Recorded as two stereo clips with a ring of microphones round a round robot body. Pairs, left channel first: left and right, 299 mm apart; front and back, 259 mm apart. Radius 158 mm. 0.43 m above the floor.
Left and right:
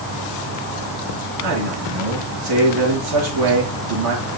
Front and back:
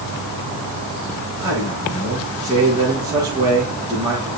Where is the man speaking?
100° right, 7 m.